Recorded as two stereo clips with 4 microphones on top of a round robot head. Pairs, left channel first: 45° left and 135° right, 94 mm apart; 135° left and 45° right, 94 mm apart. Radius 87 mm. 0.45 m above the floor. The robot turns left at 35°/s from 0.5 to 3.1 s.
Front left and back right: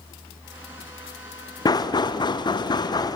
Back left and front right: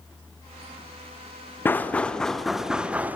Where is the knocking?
75° left, 1.1 m; by 3.2 s 20° left, 1.1 m.